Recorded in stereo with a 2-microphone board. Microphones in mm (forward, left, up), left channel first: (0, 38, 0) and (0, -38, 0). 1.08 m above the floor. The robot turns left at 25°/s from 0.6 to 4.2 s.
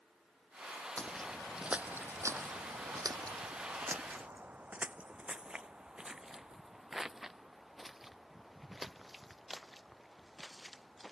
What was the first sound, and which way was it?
Footsteps, 15° left (ahead or behind).